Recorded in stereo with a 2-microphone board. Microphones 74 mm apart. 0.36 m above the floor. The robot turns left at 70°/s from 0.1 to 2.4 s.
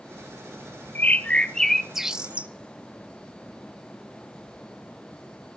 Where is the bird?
25° left (ahead or behind), 0.7 m; by 2.5 s 15° right (ahead or behind), 0.7 m.